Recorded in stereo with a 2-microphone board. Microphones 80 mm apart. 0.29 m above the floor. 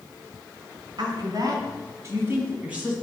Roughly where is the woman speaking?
Right.